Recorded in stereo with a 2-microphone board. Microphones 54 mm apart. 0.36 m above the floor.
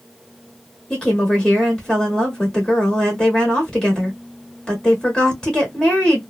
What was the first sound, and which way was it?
A woman speaking, 15° left (ahead or behind).